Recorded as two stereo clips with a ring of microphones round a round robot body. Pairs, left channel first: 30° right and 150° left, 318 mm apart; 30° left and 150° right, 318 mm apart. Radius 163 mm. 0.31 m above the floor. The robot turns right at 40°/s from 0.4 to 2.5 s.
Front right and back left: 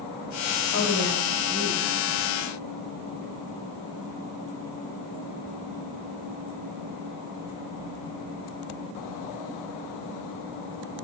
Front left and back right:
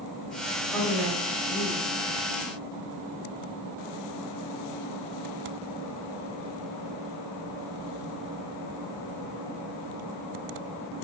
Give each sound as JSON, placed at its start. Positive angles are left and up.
{"t": 0.7, "sound": "a woman speaking", "azimuth_deg": -55, "distance_m": 1.1}